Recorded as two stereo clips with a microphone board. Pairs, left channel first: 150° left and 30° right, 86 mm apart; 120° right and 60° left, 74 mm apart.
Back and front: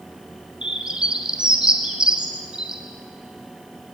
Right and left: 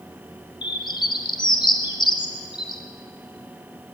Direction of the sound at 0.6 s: 110° right.